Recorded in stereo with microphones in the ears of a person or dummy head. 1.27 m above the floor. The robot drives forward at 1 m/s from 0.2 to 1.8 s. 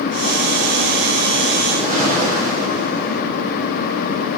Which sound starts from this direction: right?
A whoosh, at 1.7 s.